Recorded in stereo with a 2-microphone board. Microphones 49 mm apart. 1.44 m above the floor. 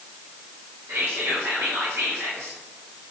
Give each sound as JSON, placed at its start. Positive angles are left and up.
{"t": 0.9, "sound": "whispering", "side_deg": -70, "distance_m": 0.6}